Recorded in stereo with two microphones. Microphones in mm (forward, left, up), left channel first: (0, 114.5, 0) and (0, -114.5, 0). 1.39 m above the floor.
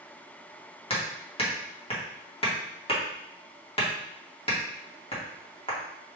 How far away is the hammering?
About 1.3 m.